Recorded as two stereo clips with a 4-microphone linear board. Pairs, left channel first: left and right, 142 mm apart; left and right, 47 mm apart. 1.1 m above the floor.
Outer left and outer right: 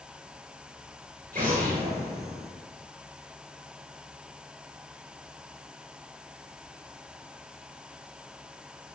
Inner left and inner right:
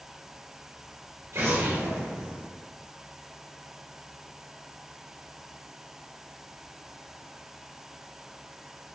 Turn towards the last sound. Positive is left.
turn(degrees=-80)